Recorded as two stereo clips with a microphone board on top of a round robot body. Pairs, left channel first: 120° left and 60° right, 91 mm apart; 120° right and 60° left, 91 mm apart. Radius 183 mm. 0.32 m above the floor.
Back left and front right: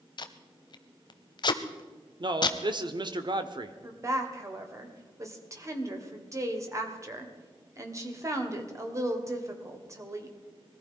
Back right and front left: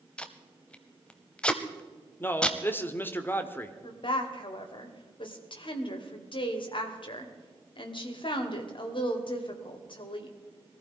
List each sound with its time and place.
0.2 s tape being pulled: 160° left, 0.6 m
2.2 s a man speaking: 55° right, 1.4 m
3.8 s a woman speaking: 115° right, 2.5 m